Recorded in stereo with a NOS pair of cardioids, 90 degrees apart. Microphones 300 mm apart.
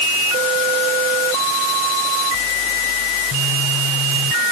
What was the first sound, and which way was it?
Only background noise.